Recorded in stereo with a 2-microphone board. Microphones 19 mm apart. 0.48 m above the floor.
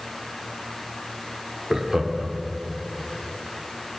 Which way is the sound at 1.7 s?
25° right (ahead or behind).